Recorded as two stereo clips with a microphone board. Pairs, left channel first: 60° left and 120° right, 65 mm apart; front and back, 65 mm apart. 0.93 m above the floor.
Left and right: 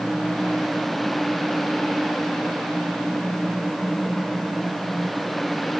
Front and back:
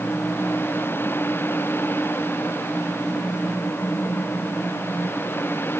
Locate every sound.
Only background noise.